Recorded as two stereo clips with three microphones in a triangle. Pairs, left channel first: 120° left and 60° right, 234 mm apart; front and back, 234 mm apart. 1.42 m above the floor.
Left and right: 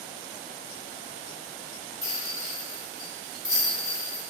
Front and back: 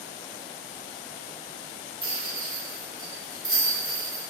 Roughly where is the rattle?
Behind.